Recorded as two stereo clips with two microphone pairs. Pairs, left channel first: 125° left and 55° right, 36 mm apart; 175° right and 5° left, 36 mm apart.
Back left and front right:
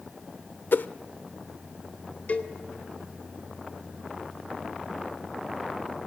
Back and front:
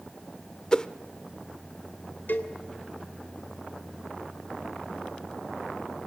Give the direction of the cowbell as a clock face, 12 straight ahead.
7 o'clock.